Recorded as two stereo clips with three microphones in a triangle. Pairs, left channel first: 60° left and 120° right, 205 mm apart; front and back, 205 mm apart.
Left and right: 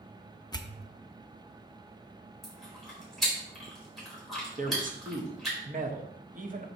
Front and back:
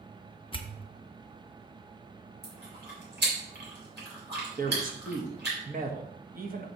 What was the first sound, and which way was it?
A pop, 15° left.